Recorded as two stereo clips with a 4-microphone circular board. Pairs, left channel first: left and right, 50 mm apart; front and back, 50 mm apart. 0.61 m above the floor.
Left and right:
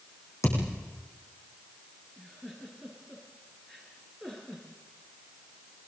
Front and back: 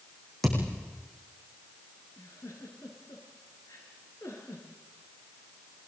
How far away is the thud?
About 9.5 m.